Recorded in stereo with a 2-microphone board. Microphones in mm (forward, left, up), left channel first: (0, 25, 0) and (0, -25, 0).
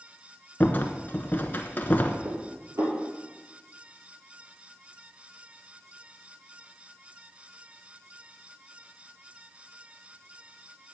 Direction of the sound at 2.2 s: 55° right (ahead or behind).